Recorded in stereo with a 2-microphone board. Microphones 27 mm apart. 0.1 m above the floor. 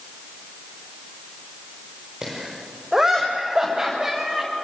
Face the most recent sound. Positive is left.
turn(degrees=-25)  # may be behind; listen again after turning